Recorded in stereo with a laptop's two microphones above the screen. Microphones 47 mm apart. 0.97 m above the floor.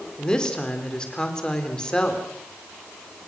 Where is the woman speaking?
20° left (ahead or behind), 3 m.